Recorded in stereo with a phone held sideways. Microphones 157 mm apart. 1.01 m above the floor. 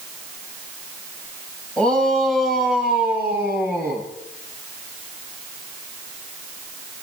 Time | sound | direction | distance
1.8 | a shout | 10° left (ahead or behind) | 6.5 m